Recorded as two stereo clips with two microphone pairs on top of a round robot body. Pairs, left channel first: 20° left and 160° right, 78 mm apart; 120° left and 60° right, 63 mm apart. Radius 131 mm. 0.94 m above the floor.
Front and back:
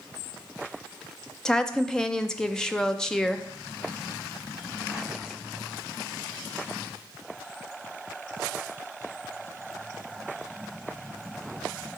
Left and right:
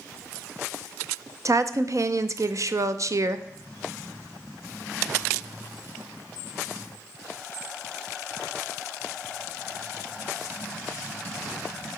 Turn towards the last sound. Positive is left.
turn(degrees=-65)